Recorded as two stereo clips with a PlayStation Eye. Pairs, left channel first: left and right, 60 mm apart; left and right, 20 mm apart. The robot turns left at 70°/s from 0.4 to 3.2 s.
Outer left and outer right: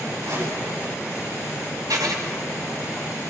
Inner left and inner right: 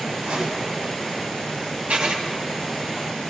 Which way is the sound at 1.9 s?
85° right.